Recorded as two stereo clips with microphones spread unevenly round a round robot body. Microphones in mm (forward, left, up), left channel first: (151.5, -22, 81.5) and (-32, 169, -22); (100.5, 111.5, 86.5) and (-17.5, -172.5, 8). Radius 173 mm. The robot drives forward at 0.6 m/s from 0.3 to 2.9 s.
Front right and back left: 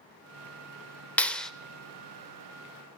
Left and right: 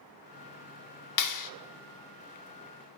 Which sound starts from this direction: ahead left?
A clap, at 1.2 s.